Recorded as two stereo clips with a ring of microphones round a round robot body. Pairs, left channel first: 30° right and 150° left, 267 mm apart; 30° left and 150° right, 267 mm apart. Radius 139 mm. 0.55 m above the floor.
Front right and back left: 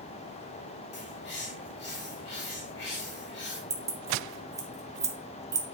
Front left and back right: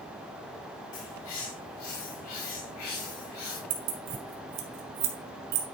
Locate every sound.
0.9 s a bird: 15° left, 4 m
3.7 s keys jangling: 135° right, 1.6 m